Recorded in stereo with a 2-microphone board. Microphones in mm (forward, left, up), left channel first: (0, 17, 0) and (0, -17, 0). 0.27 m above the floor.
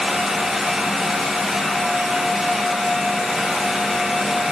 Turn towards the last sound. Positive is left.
No sound to turn to.